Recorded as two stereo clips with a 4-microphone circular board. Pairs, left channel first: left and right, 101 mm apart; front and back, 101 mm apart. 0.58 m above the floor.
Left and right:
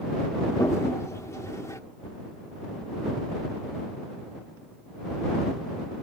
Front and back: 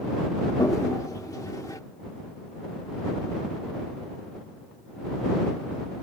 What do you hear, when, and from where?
0.6 s a toilet flushing: 45° left